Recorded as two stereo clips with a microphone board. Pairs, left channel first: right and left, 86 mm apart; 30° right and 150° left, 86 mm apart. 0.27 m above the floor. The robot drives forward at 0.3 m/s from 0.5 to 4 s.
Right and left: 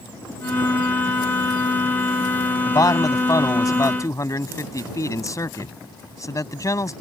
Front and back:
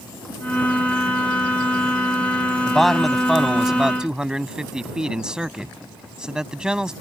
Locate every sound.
2.7 s a man speaking: 115° right; by 6.9 s 130° right